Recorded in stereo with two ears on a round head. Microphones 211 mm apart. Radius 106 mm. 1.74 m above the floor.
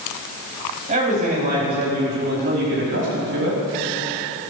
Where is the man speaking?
30° right (ahead or behind), 4.5 m; by 3.6 s 55° right (ahead or behind), 5 m.